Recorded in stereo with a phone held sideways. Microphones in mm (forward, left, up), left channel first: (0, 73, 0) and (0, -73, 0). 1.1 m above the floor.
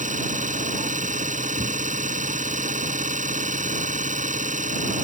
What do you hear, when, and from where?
0.0 s an engine running: 60° right (ahead or behind)